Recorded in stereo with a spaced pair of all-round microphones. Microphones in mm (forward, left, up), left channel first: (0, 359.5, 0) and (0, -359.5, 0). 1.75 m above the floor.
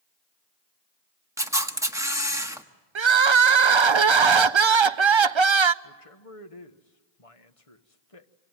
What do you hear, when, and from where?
1.4 s a camera shutter: 5° right (ahead or behind), 1.4 m
3.0 s crying: 45° right (ahead or behind), 0.6 m
5.8 s a man speaking: 50° left (ahead or behind), 1.6 m